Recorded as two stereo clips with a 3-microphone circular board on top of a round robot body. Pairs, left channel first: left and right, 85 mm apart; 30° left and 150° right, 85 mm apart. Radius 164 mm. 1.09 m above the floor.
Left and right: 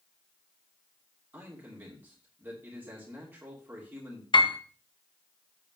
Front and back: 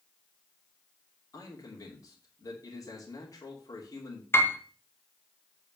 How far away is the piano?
About 1.5 m.